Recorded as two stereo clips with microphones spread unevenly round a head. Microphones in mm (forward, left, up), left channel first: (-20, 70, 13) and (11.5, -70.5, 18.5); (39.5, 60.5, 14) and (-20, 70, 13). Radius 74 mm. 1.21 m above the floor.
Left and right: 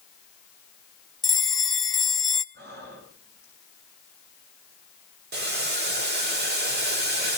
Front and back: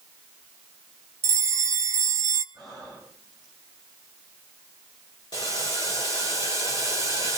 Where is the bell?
170° right, 1.0 m.